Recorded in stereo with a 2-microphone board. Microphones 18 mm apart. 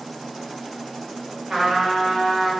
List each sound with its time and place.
1.5 s a trumpet: 25° right (ahead or behind), 1.7 m